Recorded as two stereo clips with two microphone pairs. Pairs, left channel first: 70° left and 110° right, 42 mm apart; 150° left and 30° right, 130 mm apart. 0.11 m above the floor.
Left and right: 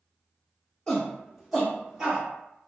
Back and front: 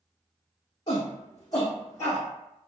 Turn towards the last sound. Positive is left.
turn(degrees=-165)